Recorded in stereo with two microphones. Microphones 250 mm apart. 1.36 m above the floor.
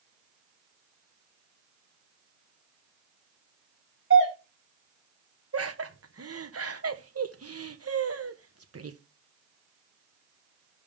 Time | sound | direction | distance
4.1 | a doorbell | 50° right (ahead or behind) | 3.5 m
5.5 | laughter | 70° right (ahead or behind) | 1.0 m